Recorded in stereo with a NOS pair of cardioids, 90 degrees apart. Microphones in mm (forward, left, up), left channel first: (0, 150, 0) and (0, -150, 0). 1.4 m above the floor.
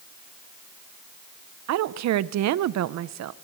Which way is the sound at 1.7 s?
65° right.